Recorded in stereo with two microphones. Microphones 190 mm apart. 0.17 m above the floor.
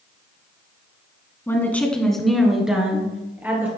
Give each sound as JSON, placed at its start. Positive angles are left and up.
{"t": 1.5, "sound": "a woman speaking", "side_deg": 15, "distance_m": 1.3}